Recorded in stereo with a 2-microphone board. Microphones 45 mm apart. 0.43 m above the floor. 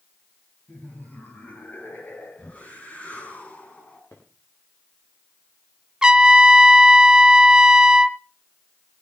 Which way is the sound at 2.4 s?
35° left (ahead or behind).